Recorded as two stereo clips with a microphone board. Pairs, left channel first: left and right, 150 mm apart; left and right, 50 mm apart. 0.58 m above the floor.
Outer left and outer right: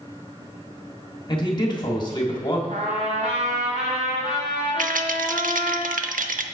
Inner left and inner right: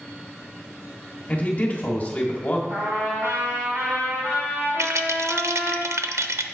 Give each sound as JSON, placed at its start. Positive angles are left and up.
{"t": 1.3, "sound": "a man speaking", "side_deg": 35, "distance_m": 1.3}
{"t": 2.7, "sound": "a trumpet", "side_deg": -55, "distance_m": 3.0}
{"t": 4.8, "sound": "a rattle", "side_deg": -75, "distance_m": 0.5}